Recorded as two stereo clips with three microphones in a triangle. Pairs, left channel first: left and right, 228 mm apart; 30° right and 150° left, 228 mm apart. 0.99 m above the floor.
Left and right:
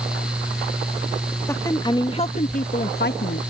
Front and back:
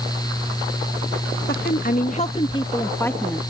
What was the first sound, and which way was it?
A woman speaking, 10° left.